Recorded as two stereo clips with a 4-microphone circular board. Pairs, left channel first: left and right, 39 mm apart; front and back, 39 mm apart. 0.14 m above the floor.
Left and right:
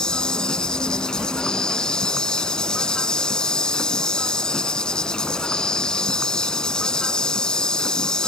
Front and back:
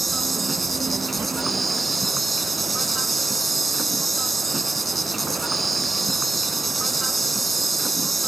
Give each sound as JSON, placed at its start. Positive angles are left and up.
{"t": 0.0, "sound": "an insect", "azimuth_deg": 80}